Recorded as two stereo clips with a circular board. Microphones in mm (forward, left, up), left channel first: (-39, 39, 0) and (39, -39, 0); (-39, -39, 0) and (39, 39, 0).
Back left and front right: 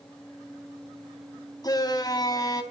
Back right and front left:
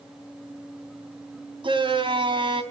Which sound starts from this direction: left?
A shout, at 1.6 s.